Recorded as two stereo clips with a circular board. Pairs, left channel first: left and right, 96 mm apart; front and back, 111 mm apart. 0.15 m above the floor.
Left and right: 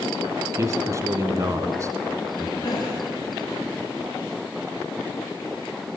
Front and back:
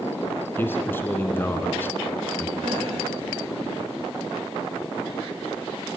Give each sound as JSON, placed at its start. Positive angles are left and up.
{"t": 0.6, "sound": "a man speaking", "azimuth_deg": -60, "distance_m": 1.9}
{"t": 2.6, "sound": "a gasp", "azimuth_deg": 140, "distance_m": 8.0}